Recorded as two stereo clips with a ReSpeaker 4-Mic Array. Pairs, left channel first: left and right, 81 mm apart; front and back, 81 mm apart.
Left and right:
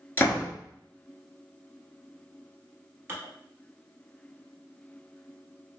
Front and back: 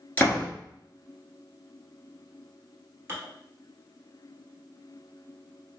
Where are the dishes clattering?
135° right, 1.3 m.